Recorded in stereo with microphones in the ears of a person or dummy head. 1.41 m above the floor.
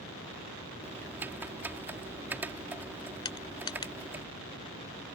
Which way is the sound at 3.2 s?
30° left (ahead or behind).